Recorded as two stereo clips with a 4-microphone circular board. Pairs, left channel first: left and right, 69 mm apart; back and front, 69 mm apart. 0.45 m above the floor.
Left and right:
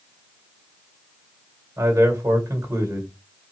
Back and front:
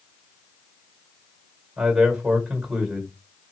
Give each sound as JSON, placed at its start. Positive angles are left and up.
{"t": 1.8, "sound": "a man speaking", "azimuth_deg": -75, "distance_m": 1.7}